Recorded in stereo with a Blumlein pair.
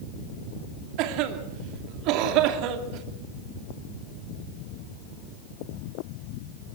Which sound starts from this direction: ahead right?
A cough, at 1.0 s.